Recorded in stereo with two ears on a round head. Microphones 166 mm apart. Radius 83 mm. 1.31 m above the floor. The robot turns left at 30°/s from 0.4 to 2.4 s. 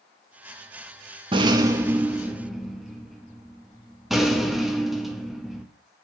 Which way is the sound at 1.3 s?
145° right.